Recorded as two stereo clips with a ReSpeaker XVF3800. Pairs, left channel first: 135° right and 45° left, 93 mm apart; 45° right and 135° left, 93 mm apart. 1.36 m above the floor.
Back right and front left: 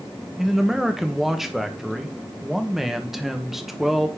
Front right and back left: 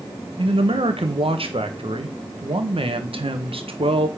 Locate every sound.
0.4 s a man speaking: 135° left, 1.3 m